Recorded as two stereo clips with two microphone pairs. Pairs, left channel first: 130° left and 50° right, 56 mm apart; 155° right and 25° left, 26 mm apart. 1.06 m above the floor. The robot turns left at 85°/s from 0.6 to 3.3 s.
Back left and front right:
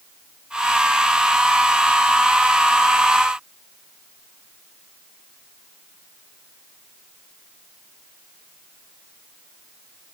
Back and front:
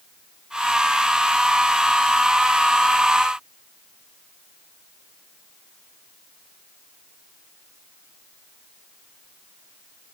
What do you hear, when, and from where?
Only background noise.